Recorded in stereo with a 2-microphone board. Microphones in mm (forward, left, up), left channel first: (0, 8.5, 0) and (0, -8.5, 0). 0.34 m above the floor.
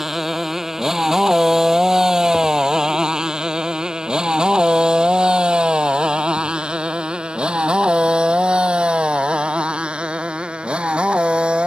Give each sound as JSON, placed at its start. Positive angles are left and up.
{"t": 0.0, "sound": "a motorcycle", "side_deg": -15}